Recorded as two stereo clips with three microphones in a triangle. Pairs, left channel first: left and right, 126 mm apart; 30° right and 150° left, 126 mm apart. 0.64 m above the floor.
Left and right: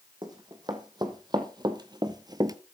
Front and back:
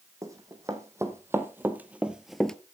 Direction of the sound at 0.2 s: 145° right.